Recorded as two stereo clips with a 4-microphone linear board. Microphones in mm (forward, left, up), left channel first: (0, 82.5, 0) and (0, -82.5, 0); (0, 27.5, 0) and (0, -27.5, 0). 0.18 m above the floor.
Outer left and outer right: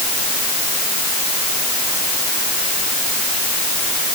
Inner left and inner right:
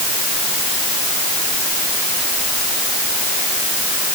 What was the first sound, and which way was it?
Only background noise.